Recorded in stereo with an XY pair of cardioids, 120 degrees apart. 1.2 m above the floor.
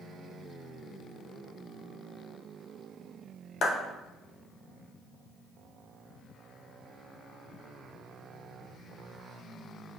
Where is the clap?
60° left, 0.9 m.